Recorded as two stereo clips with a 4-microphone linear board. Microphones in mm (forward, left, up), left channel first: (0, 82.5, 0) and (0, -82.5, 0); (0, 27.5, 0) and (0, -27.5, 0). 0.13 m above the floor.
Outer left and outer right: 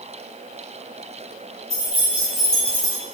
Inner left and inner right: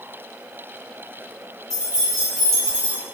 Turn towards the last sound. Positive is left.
turn(degrees=20)  # may be behind; listen again after turning